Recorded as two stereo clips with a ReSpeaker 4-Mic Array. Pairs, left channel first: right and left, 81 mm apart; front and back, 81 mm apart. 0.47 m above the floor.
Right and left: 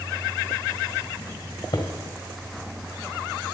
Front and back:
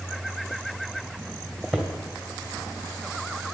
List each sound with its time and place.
1.7 s footsteps: 85° right, 2.5 m